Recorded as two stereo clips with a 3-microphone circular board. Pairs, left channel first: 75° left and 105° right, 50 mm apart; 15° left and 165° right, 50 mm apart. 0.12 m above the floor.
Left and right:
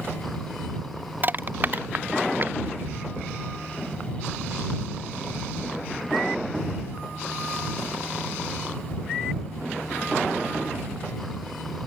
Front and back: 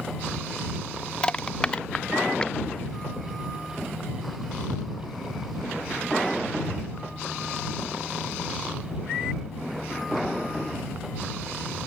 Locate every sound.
1.2 s crushing: 55° right